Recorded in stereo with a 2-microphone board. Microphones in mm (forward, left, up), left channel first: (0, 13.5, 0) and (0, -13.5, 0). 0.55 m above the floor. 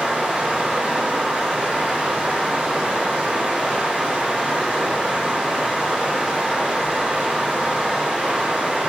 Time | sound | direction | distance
0.0 | running water | 60° right (ahead or behind) | 2.5 m